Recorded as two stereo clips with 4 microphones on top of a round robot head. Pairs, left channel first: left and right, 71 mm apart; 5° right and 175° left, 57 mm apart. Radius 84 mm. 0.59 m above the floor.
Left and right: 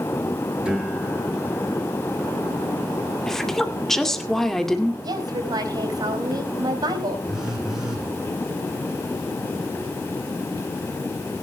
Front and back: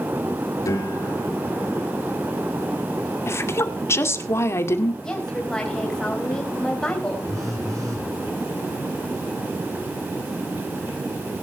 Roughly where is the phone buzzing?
Behind.